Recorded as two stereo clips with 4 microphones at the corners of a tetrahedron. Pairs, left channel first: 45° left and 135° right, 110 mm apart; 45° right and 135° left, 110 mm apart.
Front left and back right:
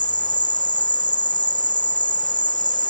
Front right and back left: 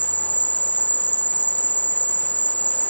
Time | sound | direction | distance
0.0 | an insect | 25° left | ?